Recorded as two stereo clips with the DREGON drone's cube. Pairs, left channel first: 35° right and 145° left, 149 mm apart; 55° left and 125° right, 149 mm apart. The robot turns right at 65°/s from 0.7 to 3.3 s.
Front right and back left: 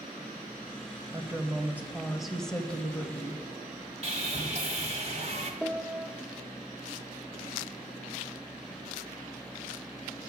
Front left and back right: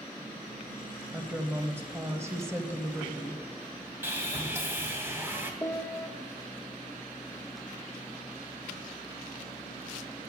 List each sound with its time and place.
1.1 s a woman speaking: 160° left, 0.9 m; by 3.4 s 60° right, 0.9 m
4.0 s sawing: 165° left, 1.4 m
5.6 s a piano: 75° left, 0.5 m